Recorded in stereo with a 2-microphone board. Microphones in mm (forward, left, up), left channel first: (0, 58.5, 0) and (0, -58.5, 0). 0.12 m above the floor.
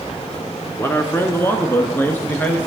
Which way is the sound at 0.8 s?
20° left (ahead or behind).